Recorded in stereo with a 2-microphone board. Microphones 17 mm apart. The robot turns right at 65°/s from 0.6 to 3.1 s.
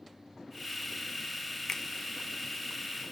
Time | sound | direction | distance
1.7 | a finger snap | 30° left (ahead or behind) | 0.6 m